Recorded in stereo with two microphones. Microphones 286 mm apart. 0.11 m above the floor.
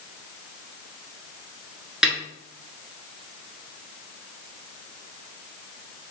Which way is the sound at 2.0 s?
Centre (ahead or behind).